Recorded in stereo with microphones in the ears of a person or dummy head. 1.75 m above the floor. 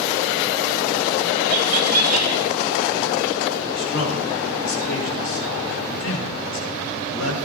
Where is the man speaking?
70° left (ahead or behind), 7.5 m.